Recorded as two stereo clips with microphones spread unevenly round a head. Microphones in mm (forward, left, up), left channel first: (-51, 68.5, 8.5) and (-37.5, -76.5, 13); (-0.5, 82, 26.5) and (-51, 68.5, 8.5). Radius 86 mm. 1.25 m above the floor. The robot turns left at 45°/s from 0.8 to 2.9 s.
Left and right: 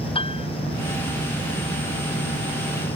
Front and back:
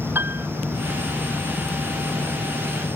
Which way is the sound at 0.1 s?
145° left.